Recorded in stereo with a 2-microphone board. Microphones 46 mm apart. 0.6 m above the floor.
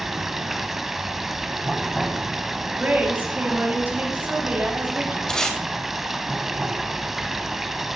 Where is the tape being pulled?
10° left (ahead or behind), 2.5 m.